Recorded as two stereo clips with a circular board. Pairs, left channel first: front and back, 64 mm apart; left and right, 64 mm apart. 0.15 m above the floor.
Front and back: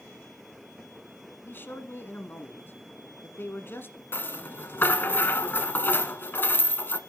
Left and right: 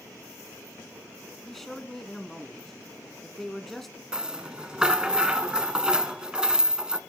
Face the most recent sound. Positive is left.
turn(degrees=-25)